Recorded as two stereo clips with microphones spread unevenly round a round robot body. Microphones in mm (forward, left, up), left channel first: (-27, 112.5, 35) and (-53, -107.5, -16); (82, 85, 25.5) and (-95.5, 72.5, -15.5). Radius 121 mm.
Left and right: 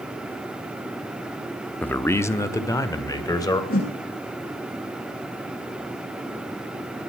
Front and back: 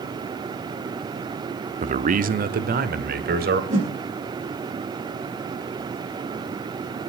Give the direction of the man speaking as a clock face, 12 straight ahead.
6 o'clock.